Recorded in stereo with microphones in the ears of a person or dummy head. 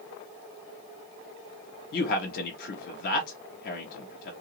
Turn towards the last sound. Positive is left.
turn(degrees=55)  # may be behind; listen again after turning